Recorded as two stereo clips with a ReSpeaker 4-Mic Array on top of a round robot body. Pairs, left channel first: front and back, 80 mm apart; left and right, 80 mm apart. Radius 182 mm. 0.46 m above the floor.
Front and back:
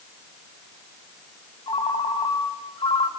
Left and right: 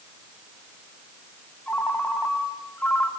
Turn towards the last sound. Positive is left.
turn(degrees=20)